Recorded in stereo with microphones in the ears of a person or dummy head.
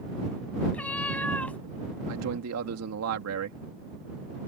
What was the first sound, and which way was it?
A cat meowing, 10° left (ahead or behind).